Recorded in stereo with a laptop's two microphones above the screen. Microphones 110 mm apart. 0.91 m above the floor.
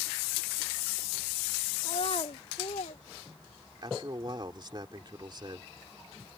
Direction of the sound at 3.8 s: 45° right (ahead or behind).